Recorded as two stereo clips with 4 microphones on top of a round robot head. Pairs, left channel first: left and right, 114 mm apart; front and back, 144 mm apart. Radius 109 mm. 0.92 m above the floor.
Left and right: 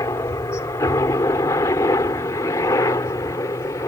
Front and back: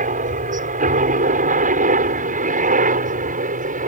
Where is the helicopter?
160° left.